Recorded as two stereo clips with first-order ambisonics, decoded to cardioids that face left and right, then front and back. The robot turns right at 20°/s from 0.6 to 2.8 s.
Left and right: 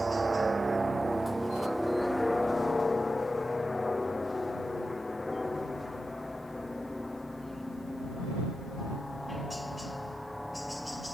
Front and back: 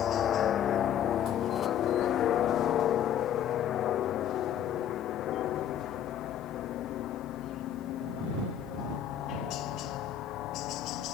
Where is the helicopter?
15° right; by 11.1 s 5° left.